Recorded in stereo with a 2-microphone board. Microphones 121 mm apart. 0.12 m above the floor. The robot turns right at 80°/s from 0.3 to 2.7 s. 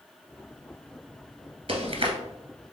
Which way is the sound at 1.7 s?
50° right (ahead or behind).